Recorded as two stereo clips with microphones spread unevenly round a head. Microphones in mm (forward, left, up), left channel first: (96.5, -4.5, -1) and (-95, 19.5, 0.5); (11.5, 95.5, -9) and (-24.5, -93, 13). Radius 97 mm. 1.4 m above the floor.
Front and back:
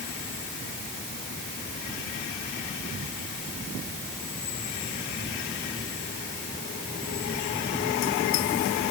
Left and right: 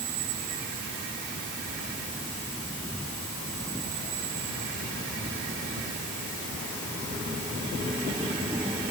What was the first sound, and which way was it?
Only background noise.